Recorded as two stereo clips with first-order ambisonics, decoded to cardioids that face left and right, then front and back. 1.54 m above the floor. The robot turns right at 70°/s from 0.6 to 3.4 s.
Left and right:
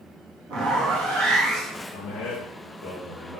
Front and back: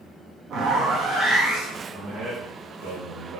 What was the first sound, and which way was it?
A zipper, 125° right.